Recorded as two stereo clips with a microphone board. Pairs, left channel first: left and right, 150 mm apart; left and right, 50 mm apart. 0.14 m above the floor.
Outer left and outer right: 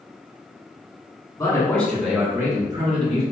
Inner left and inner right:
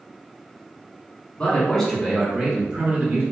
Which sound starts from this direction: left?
A man speaking, at 1.4 s.